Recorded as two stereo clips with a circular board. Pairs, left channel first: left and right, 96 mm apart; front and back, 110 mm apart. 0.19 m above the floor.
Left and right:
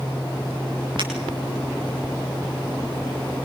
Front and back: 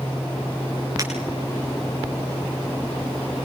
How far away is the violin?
I don't hear a violin.